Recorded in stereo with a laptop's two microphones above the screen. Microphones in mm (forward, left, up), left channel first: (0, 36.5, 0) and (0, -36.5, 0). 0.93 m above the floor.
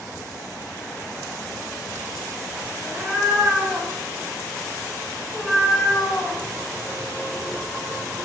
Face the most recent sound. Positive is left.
turn(degrees=35)  # may be behind; listen again after turning